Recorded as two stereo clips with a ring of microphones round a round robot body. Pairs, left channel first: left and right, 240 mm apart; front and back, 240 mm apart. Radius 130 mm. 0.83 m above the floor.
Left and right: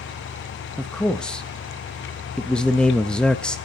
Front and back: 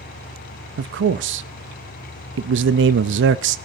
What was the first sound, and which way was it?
A man speaking, 175° left.